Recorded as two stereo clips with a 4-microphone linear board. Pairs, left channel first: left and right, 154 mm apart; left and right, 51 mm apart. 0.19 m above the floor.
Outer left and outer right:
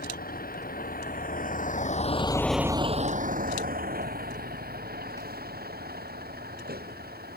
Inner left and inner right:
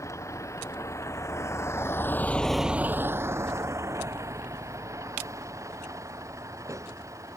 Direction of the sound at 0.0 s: 80° left.